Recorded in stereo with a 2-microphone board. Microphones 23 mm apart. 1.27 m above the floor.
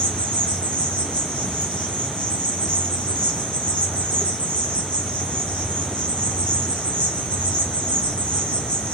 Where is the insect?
75° left (ahead or behind), 1.2 m.